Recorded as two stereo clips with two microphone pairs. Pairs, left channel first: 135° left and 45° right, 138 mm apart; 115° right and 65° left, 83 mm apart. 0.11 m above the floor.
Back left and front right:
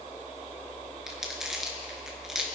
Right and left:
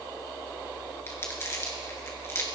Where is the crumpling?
130° right, 1.8 m.